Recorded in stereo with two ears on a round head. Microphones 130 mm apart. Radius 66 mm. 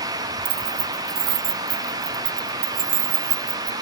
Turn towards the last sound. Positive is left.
turn(degrees=-85)